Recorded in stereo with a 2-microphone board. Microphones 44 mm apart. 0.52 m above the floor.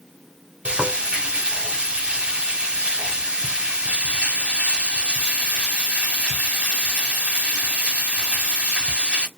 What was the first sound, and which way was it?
Frying, 25° right (ahead or behind).